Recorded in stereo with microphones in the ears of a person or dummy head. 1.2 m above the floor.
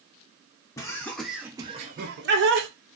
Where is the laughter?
20° left (ahead or behind), 0.8 m; by 2.7 s 60° right (ahead or behind), 0.7 m.